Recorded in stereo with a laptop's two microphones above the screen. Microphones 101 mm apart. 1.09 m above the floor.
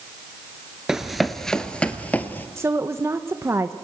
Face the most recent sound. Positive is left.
turn(degrees=-25)  # may be behind; listen again after turning